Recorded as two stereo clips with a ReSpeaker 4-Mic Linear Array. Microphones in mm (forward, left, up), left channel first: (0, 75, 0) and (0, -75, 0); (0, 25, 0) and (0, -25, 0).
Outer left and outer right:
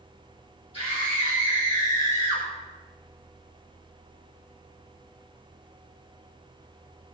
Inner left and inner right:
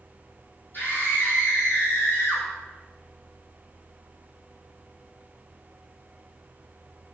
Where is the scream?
45° left (ahead or behind), 4 m.